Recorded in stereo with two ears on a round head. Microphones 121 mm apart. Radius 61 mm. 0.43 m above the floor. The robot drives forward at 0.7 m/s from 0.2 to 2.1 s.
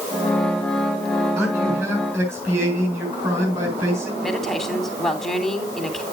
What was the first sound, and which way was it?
A man speaking, 15° right (ahead or behind).